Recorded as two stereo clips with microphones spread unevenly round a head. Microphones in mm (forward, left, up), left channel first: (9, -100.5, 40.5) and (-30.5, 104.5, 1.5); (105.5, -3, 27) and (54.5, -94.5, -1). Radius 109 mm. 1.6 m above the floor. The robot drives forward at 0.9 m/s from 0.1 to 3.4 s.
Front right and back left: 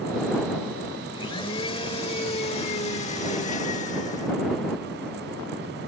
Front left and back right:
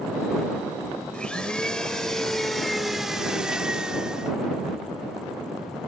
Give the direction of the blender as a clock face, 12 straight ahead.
12 o'clock.